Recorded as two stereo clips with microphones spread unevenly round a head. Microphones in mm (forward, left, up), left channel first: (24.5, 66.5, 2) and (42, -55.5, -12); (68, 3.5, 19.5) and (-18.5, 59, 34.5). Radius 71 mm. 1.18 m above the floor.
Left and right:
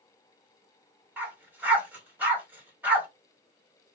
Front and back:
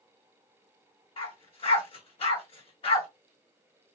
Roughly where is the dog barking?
Ahead.